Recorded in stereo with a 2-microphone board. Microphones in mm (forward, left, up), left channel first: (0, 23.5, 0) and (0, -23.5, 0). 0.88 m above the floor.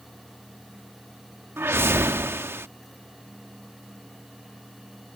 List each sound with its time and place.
1.6 s a whoosh: 55° right (ahead or behind)